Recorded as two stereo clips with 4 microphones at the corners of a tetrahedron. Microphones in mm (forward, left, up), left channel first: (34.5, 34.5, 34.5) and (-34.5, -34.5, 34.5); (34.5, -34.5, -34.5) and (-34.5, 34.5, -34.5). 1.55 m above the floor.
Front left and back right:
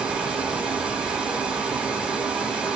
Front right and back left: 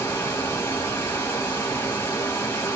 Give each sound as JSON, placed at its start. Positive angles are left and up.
{"t": 0.0, "sound": "running water", "azimuth_deg": -65, "distance_m": 1.3}